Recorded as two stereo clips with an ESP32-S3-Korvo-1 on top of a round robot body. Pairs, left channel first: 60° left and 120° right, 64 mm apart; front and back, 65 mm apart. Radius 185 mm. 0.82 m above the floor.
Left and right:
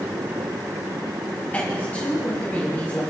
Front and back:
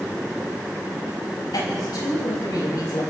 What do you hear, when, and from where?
1.5 s a woman speaking: 10° right, 5 m